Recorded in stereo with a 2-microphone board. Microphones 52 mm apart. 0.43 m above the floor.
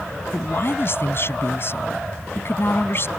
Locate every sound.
0.3 s a man speaking: 50° left (ahead or behind)